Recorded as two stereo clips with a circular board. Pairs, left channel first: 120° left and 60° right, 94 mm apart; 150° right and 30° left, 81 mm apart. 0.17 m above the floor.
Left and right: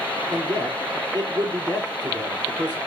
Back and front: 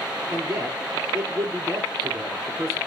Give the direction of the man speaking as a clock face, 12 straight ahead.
1 o'clock.